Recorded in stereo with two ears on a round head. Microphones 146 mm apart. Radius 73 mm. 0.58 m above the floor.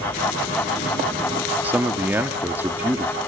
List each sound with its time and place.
1.6 s a man speaking: 10° right (ahead or behind), 1.1 m